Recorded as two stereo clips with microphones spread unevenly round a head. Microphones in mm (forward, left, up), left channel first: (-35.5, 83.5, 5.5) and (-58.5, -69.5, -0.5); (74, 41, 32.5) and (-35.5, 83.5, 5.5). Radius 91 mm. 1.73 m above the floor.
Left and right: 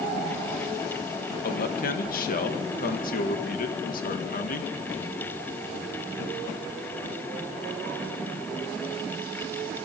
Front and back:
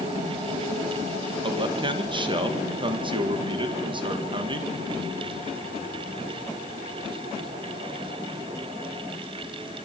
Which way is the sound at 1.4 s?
110° left.